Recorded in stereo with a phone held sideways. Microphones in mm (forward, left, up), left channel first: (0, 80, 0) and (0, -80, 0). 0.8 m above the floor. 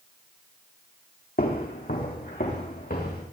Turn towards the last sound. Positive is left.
turn(degrees=70)  # may be behind; listen again after turning